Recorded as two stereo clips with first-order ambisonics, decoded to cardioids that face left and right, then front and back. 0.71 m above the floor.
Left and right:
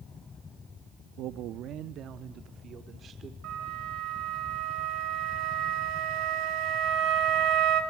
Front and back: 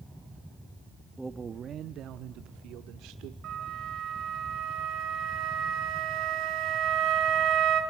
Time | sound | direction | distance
1.2 | a man speaking | 90° right | 0.6 m
3.4 | a flute | 130° right | 3.5 m